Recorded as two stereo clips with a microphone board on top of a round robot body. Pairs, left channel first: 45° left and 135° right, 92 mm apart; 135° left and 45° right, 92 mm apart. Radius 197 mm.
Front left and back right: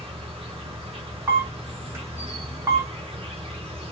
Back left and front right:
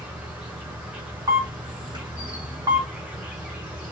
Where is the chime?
I don't hear a chime.